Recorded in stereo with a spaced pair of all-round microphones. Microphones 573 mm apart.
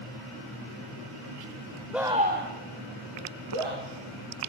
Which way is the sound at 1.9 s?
Centre (ahead or behind).